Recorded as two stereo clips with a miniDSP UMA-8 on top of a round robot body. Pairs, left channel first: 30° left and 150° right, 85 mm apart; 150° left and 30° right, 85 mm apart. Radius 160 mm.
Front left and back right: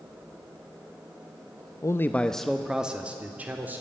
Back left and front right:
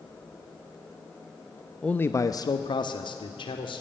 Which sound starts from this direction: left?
A man speaking, at 1.8 s.